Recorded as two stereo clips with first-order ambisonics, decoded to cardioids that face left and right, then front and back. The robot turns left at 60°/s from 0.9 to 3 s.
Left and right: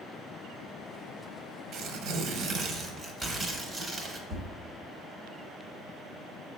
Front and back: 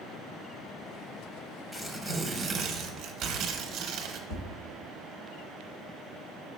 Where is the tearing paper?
80° right, 0.6 m; by 4.2 s 160° right, 0.6 m.